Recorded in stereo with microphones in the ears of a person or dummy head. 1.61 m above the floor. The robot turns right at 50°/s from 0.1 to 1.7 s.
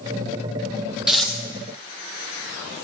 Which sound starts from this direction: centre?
Tearing paper, at 1.1 s.